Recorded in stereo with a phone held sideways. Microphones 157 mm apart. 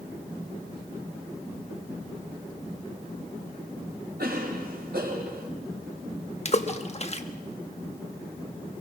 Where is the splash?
40° left (ahead or behind), 1.3 m.